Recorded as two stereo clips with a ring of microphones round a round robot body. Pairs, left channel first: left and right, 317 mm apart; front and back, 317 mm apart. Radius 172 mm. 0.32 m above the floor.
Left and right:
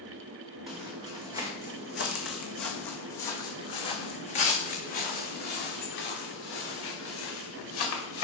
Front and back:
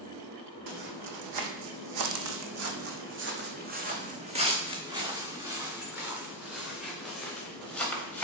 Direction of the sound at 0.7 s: Straight behind.